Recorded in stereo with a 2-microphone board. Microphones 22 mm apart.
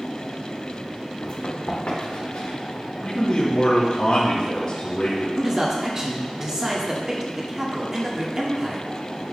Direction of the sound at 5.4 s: 25° right (ahead or behind).